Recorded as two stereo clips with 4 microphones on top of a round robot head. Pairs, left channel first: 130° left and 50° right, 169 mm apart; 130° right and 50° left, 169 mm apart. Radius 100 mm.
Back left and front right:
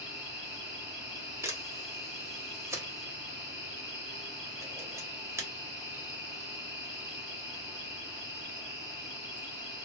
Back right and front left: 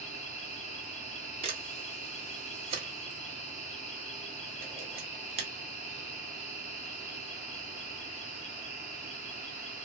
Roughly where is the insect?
Behind right.